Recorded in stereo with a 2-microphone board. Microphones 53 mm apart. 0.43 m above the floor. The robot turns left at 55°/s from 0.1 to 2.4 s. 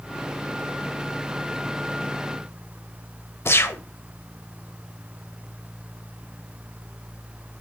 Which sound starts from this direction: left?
A gunshot, at 3.5 s.